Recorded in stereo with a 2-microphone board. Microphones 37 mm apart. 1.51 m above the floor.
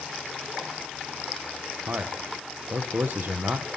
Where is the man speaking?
75° right (ahead or behind), 1.4 m.